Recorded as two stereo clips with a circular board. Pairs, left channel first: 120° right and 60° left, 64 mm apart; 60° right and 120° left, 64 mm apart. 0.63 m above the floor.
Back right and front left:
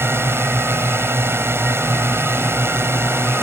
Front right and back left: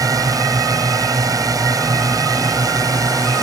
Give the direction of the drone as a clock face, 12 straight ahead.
8 o'clock.